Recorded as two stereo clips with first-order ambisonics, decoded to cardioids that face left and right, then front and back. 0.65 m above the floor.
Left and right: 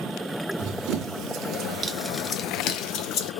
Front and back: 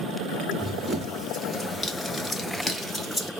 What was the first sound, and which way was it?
Running footsteps, 90° right.